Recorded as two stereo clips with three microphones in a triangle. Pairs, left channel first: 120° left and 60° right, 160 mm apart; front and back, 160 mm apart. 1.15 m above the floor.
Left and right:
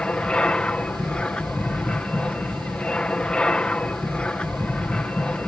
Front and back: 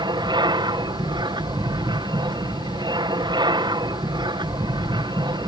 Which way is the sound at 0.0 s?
165° right.